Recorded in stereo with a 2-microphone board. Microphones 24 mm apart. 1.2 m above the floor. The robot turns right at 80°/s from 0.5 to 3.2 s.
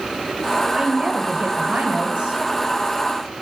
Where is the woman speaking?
165° right, 1.4 m; by 2.4 s 35° right, 1.4 m.